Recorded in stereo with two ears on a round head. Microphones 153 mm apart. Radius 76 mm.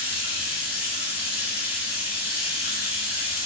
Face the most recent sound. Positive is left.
turn(degrees=65)  # may be behind; listen again after turning